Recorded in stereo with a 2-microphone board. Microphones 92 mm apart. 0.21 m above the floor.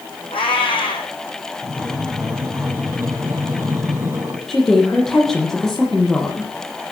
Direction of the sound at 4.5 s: 5° left (ahead or behind).